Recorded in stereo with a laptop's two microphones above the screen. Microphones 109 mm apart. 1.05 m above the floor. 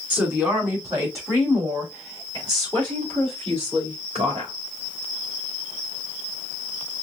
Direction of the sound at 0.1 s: 15° right (ahead or behind).